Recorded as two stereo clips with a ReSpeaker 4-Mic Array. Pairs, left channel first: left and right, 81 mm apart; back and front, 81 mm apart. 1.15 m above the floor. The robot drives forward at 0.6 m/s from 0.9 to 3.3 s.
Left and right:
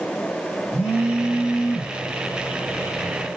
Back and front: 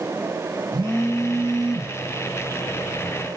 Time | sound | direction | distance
0.7 | a phone buzzing | 30° left | 1.5 m